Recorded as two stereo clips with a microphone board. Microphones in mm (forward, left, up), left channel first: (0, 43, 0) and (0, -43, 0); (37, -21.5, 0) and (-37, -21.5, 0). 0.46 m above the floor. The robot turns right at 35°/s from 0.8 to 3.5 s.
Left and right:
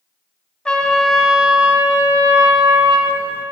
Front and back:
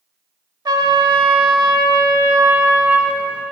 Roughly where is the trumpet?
Behind.